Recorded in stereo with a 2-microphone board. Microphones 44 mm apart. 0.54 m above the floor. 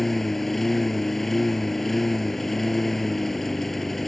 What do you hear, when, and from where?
0.0 s a lawn mower: 5° left (ahead or behind)